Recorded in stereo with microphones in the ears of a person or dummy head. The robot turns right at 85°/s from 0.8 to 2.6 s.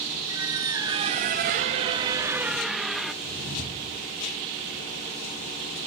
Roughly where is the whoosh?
Right.